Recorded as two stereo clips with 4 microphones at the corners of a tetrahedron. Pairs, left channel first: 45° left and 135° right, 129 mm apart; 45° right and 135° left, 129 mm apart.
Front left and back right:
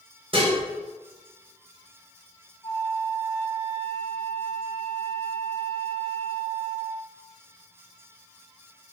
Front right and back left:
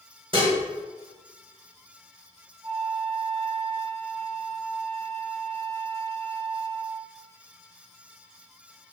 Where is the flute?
100° left, 1.4 m.